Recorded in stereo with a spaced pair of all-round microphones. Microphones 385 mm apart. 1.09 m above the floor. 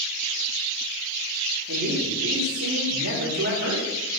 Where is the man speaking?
35° right (ahead or behind), 3 m.